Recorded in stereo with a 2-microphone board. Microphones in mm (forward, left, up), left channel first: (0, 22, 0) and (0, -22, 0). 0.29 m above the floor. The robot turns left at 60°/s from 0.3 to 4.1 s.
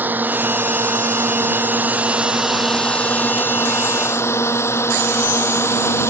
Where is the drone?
45° right (ahead or behind); by 6.1 s 85° left.